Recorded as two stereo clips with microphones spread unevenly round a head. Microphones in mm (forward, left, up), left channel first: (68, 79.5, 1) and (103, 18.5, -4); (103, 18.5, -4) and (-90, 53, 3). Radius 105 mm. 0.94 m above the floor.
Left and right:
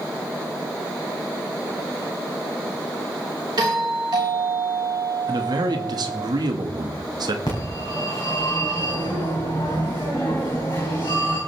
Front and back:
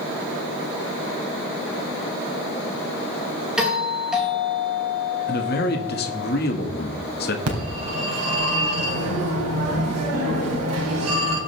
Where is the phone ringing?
170° right, 3.5 m.